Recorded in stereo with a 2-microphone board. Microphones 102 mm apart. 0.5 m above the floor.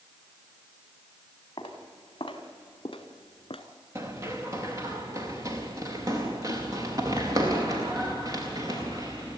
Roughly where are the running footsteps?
Right.